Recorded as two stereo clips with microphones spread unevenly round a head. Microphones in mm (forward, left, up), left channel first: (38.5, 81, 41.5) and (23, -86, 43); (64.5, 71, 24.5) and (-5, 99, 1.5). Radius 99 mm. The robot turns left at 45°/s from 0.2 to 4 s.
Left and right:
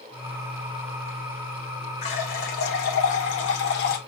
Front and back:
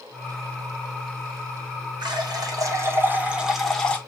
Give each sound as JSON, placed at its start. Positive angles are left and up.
{"t": 2.0, "sound": "a running tap", "azimuth_deg": 140, "distance_m": 1.1}